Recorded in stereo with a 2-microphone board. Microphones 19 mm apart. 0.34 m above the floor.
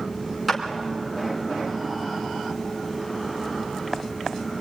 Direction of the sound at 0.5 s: 5° right (ahead or behind).